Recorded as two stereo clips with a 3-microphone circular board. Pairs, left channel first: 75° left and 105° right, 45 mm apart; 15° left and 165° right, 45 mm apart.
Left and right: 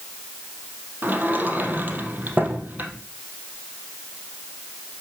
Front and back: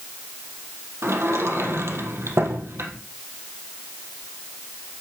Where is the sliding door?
155° right, 3 m.